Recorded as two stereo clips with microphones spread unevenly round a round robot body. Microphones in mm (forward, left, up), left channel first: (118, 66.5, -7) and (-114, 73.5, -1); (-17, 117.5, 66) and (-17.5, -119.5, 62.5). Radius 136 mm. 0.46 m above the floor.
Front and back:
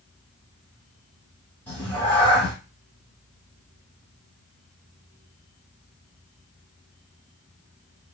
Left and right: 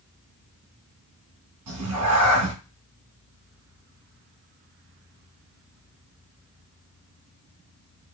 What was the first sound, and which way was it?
A cat meowing, 85° right.